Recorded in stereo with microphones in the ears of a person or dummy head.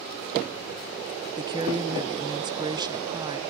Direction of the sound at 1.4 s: 20° right (ahead or behind).